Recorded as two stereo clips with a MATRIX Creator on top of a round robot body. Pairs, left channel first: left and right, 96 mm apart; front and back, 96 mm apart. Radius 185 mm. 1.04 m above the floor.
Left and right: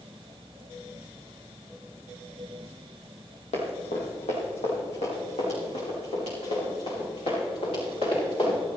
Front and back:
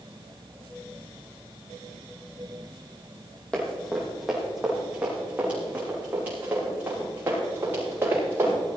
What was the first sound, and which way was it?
Running footsteps, 80° left.